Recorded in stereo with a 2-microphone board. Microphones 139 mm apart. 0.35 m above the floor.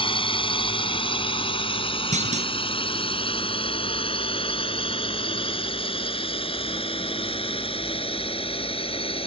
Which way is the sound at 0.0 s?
40° left (ahead or behind).